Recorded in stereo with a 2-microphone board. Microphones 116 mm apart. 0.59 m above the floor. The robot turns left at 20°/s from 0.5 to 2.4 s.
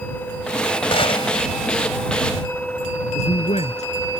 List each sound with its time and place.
0.9 s a gunshot: 50° left (ahead or behind); by 1.4 s 60° left (ahead or behind)
3.1 s a man speaking: 75° left (ahead or behind)